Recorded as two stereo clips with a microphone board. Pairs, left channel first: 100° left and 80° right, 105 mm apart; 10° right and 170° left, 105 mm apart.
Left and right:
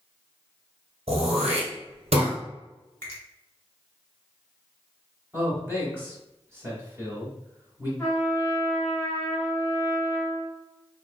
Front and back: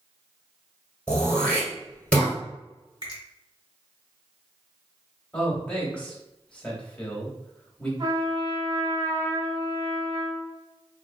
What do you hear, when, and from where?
1.1 s throat clearing: 90° right, 1.4 m
3.0 s a finger snap: 160° left, 1.8 m
5.3 s a man speaking: 70° right, 1.2 m
8.0 s a trumpet: 160° left, 1.7 m